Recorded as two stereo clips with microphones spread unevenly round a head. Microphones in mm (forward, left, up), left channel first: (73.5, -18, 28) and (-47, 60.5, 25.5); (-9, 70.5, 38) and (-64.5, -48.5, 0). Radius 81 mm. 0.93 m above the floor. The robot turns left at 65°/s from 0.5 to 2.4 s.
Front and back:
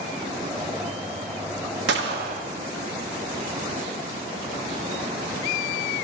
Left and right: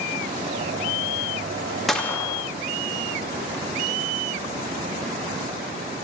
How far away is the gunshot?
About 0.5 m.